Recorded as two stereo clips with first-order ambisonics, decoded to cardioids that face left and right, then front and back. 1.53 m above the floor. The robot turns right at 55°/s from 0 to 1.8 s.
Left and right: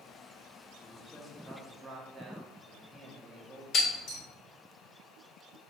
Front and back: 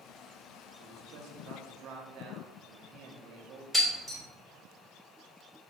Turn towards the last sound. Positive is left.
turn(degrees=100)